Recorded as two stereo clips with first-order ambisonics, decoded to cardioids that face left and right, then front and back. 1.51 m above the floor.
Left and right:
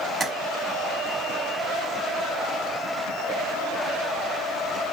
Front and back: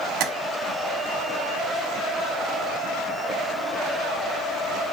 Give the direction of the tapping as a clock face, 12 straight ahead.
6 o'clock.